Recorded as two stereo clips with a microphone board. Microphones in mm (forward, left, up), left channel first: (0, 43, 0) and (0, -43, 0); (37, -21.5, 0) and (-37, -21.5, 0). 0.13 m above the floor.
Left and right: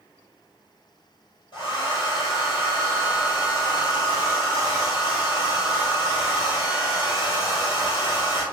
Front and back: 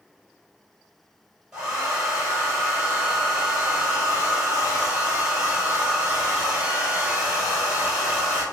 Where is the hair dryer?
100° left, 1.7 m.